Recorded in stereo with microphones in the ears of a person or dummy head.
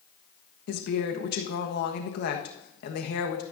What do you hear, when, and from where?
0.7 s a woman speaking: 65° left (ahead or behind), 1.3 m